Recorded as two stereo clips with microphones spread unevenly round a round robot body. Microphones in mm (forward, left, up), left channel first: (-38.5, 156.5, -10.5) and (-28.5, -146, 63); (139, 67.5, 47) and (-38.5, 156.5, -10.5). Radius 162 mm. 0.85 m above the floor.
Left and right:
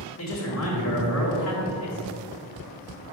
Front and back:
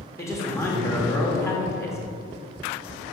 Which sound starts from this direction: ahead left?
A man speaking, at 0.2 s.